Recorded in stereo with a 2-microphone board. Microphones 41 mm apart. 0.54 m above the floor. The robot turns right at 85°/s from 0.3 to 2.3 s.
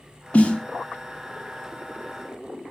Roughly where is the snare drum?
Left.